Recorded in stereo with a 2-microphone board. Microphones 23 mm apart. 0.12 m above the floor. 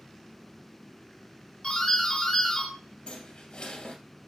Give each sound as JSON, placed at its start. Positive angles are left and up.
{"t": 1.6, "sound": "a doorbell", "side_deg": 35, "distance_m": 2.5}
{"t": 3.1, "sound": "a squeak", "side_deg": 40, "distance_m": 1.7}